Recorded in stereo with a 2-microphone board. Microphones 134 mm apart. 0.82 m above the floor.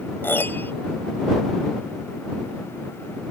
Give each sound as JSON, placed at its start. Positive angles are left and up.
{"t": 0.2, "sound": "a piano", "side_deg": 15}